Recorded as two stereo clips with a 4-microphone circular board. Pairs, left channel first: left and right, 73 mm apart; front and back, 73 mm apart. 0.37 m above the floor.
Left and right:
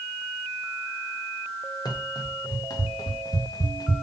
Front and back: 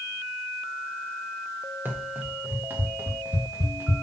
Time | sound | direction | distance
1.9 | running footsteps | 115° left | 4.5 m